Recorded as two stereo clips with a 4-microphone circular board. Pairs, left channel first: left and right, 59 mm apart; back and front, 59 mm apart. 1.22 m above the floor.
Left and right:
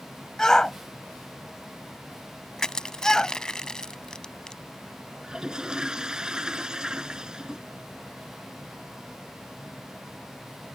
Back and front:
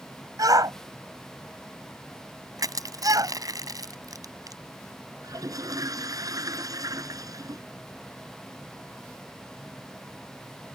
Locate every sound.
0.4 s a shout: 10° left
2.6 s crushing: 10° left
5.2 s a toilet flushing: 10° right